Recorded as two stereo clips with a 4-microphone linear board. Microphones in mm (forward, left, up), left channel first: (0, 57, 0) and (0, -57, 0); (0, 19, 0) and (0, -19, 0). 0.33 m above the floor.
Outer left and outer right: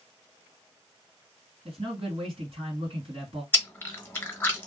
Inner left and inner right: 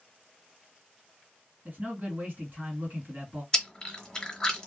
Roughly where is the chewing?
Centre.